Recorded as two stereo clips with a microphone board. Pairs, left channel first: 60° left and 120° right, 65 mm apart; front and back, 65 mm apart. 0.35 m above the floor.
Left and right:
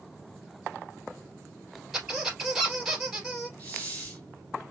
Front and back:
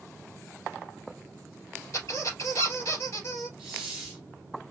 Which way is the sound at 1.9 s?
35° right.